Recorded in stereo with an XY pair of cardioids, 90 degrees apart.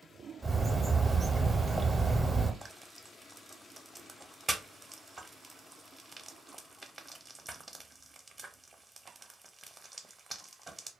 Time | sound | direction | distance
0.4 | a bird | 15° right | 0.6 m
2.6 | frying | 20° right | 0.6 m